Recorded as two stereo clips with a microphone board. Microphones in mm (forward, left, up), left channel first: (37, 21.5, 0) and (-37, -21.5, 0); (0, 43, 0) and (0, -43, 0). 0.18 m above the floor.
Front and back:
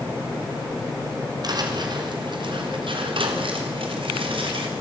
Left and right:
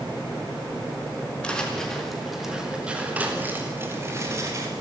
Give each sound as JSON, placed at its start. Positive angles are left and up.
{"t": 1.4, "sound": "footsteps", "azimuth_deg": 170, "distance_m": 4.0}